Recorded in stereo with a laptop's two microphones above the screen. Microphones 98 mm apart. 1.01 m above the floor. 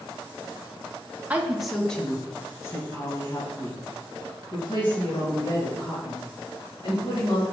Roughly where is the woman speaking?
Centre.